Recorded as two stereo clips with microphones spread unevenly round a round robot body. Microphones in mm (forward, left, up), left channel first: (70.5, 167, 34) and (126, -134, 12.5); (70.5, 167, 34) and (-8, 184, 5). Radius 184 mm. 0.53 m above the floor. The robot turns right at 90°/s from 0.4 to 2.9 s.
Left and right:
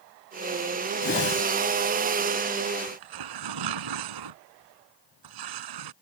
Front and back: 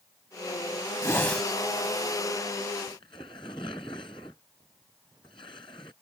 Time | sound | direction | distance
1.0 | a whoosh | 40° left | ?
2.9 | tearing paper | 90° right | ?